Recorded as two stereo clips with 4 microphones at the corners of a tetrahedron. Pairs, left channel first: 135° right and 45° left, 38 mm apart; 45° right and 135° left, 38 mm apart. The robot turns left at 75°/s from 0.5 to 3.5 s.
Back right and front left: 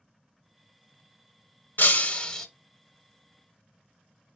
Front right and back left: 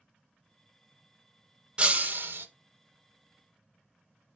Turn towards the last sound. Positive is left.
turn(degrees=70)